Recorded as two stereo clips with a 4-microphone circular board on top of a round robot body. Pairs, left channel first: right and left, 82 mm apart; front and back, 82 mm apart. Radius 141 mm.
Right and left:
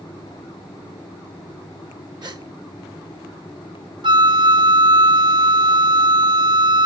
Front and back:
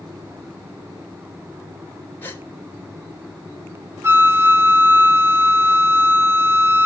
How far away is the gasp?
About 3 m.